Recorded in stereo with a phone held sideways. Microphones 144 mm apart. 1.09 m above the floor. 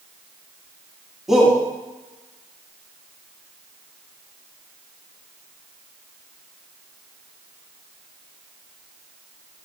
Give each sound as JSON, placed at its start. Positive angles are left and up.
{"t": 1.3, "sound": "a shout", "side_deg": -5, "distance_m": 2.0}